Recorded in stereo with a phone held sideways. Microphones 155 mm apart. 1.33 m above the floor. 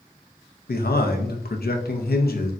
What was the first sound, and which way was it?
A man speaking, 85° left.